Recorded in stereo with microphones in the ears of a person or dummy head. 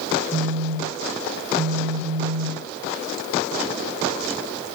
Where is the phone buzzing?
15° left (ahead or behind), 1.7 m.